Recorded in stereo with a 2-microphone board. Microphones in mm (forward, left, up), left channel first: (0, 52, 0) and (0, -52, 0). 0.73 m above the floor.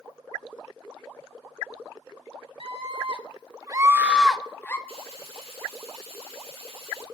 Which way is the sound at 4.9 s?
85° right.